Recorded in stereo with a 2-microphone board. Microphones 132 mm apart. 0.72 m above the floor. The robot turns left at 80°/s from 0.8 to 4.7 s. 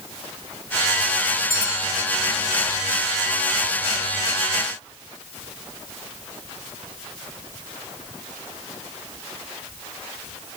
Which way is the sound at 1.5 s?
175° left.